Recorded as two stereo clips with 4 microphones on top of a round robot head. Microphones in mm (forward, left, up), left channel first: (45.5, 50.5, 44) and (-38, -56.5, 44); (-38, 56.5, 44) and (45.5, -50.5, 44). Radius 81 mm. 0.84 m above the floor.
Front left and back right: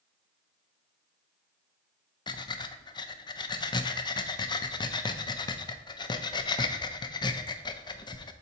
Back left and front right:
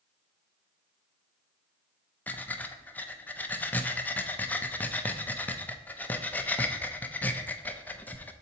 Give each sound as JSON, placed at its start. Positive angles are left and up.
{"t": 2.3, "sound": "breathing", "azimuth_deg": 60, "distance_m": 0.5}